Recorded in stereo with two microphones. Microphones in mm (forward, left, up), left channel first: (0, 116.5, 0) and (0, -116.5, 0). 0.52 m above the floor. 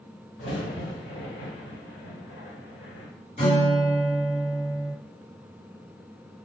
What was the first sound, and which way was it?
A crack, 65° left (ahead or behind).